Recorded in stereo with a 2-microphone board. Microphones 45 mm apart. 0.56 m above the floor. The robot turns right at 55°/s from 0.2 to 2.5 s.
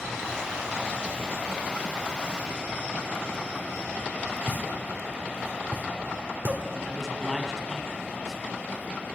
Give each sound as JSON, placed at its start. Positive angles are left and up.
{"t": 4.5, "sound": "a pop", "side_deg": -55, "distance_m": 1.9}
{"t": 6.8, "sound": "a man speaking", "side_deg": 5, "distance_m": 4.5}